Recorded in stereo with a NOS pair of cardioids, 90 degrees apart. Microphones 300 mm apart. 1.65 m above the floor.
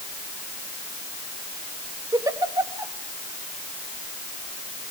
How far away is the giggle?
About 2 m.